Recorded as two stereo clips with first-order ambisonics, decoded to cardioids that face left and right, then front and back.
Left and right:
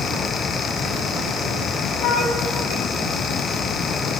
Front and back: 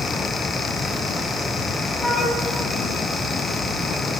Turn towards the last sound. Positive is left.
turn(degrees=80)